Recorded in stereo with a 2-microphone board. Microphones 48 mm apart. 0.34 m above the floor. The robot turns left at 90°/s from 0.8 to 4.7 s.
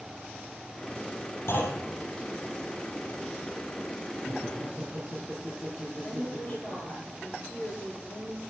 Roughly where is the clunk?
Behind left.